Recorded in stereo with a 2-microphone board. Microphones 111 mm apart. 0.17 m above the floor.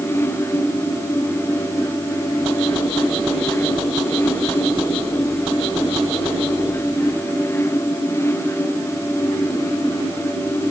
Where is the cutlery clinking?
I don't hear cutlery clinking.